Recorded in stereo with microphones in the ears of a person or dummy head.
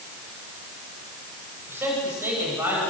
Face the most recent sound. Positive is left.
turn(degrees=-10)  # may be behind; listen again after turning